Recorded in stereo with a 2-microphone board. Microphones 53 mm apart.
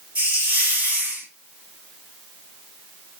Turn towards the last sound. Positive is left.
turn(degrees=-25)  # may be behind; listen again after turning